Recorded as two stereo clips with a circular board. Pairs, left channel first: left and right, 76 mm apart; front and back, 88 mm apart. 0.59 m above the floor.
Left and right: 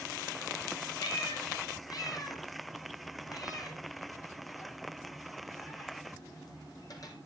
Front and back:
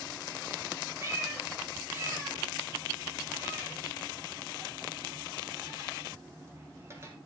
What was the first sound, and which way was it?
A cat meowing, 120° left.